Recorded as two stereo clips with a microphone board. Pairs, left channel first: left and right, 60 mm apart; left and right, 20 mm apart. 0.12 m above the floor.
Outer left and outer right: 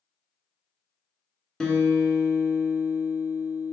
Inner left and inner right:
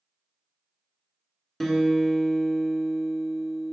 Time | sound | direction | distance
1.6 | a guitar | 10° left (ahead or behind) | 0.9 m